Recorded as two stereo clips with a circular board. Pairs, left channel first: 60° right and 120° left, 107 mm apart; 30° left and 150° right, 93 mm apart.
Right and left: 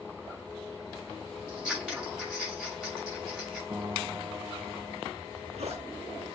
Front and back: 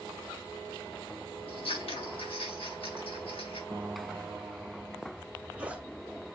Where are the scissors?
40° left, 6 m.